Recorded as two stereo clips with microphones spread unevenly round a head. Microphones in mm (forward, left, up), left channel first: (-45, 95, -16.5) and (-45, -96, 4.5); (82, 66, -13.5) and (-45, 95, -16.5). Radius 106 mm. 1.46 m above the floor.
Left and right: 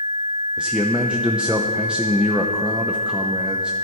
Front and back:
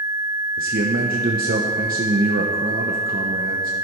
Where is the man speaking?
175° right, 0.9 m.